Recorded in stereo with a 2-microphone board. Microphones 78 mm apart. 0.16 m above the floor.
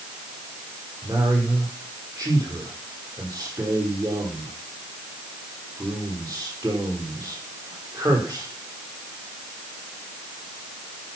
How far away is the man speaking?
About 5.5 m.